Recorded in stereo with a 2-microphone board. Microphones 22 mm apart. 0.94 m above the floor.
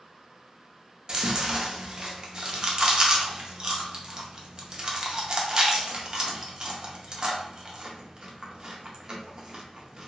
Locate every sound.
1.1 s chewing: 35° right (ahead or behind), 0.6 m